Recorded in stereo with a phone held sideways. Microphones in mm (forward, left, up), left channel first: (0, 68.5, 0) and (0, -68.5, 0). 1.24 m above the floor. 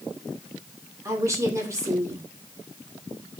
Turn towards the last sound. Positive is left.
turn(degrees=-20)  # may be behind; listen again after turning